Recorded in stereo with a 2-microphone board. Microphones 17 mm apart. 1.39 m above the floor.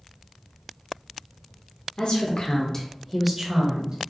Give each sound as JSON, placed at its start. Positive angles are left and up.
{"t": 2.0, "sound": "a woman speaking", "side_deg": 60, "distance_m": 1.1}